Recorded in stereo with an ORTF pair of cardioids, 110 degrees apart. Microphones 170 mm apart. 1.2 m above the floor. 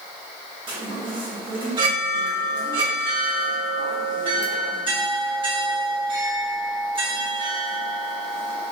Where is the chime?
30° right, 1.4 m.